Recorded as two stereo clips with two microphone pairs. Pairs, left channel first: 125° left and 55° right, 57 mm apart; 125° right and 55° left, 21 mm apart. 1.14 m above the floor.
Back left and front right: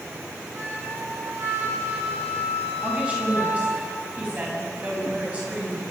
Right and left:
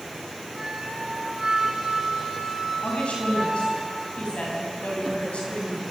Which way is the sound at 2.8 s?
120° right.